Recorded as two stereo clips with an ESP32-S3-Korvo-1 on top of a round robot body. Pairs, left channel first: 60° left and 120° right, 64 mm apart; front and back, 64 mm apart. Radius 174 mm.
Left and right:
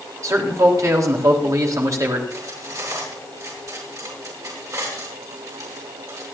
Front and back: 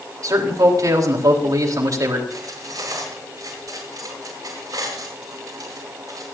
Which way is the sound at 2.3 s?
155° right.